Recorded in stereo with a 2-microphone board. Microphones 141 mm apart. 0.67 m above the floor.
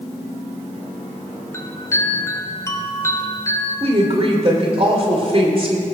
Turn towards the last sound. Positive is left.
turn(degrees=-45)  # may be behind; listen again after turning